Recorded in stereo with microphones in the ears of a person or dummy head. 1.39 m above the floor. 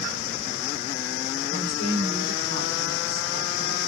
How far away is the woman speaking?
About 3 m.